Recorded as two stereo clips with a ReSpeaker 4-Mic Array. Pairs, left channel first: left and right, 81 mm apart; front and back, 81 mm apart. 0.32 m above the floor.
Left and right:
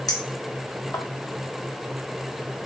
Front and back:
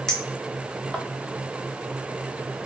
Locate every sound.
0.1 s a clink: 75° left, 0.8 m